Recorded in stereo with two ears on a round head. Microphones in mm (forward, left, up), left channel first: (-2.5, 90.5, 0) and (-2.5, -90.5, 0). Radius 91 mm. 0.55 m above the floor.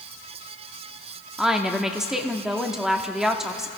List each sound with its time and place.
1.4 s a woman speaking: centre (ahead or behind), 0.9 m